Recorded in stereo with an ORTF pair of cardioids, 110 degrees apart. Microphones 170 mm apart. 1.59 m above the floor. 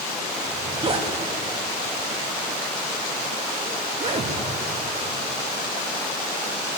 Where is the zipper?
35° right, 2.5 m.